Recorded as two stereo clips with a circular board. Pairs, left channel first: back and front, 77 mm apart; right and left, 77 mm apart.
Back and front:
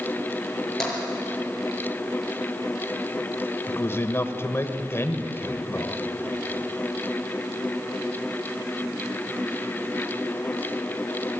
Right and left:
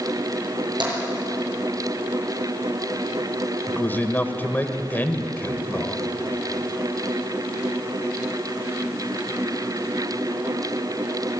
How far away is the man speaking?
About 1.6 m.